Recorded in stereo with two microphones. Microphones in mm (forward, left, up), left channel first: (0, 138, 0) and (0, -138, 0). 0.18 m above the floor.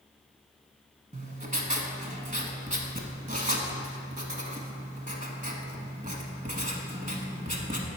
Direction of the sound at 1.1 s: 30° right (ahead or behind).